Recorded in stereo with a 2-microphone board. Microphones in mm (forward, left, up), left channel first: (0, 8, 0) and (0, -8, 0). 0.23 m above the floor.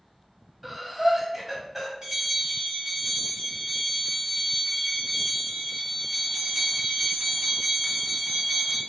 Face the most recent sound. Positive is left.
turn(degrees=-50)  # may be behind; listen again after turning